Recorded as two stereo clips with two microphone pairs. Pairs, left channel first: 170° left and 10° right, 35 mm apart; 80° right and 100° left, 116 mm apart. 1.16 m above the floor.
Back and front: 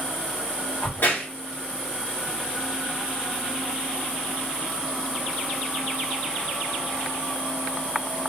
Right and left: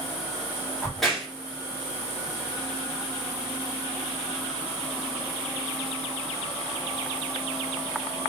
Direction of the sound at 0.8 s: 170° right.